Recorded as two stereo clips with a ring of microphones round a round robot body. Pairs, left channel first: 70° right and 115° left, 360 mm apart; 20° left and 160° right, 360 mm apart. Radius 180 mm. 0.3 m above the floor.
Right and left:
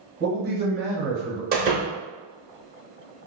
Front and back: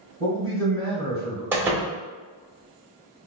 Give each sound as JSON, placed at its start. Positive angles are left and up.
{"t": 0.2, "sound": "a man speaking", "azimuth_deg": 95, "distance_m": 1.3}
{"t": 1.5, "sound": "a door slam", "azimuth_deg": 125, "distance_m": 0.7}